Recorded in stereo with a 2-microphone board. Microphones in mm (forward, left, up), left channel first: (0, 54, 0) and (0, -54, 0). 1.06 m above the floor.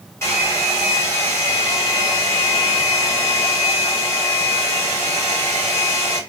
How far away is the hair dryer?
About 1.9 m.